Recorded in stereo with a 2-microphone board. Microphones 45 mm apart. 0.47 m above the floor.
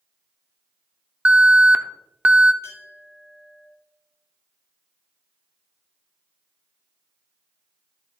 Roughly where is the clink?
Left.